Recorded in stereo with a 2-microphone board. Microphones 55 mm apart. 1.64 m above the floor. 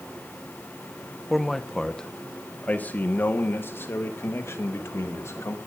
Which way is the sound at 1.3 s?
Centre (ahead or behind).